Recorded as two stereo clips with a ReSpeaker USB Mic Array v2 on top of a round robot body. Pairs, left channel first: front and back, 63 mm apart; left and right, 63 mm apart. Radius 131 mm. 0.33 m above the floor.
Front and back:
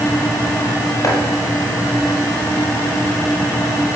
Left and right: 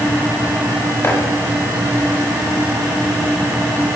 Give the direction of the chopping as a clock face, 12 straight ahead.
11 o'clock.